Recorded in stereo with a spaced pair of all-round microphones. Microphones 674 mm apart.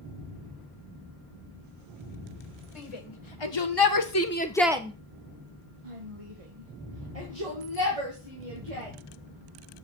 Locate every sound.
2.8 s a shout: 55° left (ahead or behind), 1.5 m; by 8.9 s 65° right (ahead or behind), 3 m